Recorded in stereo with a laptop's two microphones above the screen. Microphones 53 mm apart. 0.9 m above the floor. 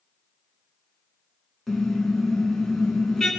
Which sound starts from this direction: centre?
A car horn, at 1.7 s.